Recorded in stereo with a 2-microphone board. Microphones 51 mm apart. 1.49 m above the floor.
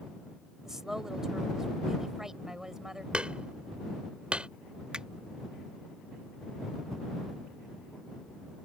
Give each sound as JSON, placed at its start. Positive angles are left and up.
{"t": 0.7, "sound": "a woman speaking", "side_deg": -10}
{"t": 3.1, "sound": "hammering", "side_deg": -20}
{"t": 4.9, "sound": "a finger snap", "side_deg": -20}